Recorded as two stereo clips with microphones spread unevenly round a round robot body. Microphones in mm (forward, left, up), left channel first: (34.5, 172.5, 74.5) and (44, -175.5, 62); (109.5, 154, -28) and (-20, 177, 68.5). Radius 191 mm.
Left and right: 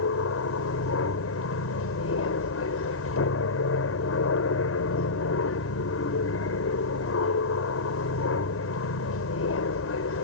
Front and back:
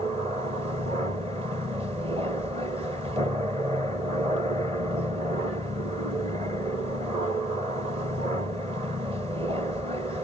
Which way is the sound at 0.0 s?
100° left.